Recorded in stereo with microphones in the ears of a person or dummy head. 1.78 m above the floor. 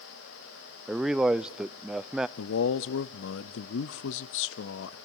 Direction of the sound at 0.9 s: 5° right (ahead or behind).